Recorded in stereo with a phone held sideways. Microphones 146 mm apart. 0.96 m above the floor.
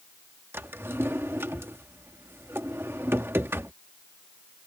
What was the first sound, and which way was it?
A drawer, 15° right (ahead or behind).